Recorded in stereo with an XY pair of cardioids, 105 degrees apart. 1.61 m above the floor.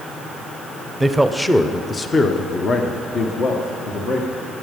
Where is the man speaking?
10° right, 0.8 m; by 4.5 s 65° left, 2.5 m.